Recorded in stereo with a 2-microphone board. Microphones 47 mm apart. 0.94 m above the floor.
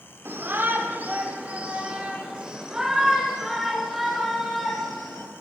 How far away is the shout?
About 3.5 m.